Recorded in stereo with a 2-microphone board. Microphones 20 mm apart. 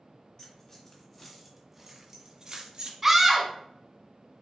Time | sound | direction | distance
0.4 | keys jangling | 25° left (ahead or behind) | 1.9 m
3.0 | a scream | 15° right (ahead or behind) | 1.2 m